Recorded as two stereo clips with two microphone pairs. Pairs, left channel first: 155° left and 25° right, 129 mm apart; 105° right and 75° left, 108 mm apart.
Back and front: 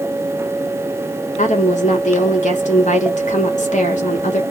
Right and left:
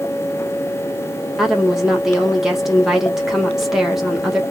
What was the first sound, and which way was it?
A woman speaking, 160° left.